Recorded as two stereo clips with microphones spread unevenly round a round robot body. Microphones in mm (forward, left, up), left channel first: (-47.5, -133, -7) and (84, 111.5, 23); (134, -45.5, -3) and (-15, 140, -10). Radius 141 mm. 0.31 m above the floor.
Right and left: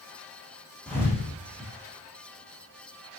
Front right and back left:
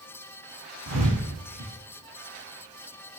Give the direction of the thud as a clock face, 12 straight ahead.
7 o'clock.